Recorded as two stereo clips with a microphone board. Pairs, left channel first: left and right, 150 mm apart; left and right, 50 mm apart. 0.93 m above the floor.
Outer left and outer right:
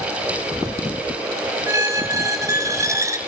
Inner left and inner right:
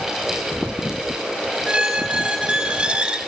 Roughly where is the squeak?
Right.